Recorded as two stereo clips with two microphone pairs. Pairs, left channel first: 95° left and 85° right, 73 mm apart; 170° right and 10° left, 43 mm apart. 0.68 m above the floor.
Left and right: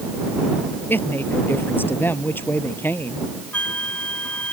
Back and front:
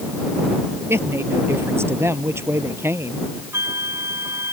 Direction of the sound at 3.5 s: 20° left.